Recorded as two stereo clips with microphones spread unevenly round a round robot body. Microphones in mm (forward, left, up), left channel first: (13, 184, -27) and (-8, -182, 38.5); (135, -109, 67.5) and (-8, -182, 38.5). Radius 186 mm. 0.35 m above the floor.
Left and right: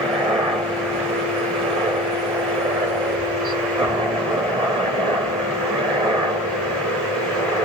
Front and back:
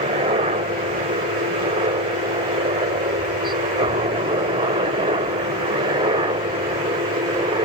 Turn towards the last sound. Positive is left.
turn(degrees=-175)